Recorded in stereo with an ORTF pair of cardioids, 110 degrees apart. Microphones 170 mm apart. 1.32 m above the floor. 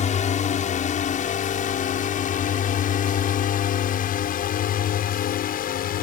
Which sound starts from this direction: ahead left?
A drone, at 0.0 s.